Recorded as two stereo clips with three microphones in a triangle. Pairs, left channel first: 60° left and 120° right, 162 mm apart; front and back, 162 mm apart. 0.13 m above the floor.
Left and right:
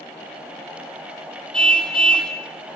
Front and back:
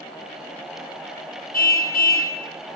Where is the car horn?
25° right, 2.5 m.